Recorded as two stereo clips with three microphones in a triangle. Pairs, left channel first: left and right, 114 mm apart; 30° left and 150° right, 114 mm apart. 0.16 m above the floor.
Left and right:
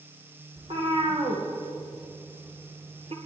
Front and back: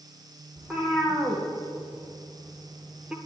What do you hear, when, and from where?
0.6 s a cat meowing: 60° right, 3 m; by 3.2 s 70° right, 1.1 m